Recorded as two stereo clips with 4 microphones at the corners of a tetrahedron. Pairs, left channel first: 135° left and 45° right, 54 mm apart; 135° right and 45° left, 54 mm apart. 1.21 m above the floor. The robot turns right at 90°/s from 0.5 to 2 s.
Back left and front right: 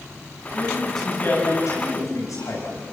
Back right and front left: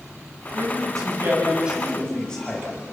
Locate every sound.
0.5 s a man speaking: 15° left, 7.5 m; by 2.9 s 150° left, 7.5 m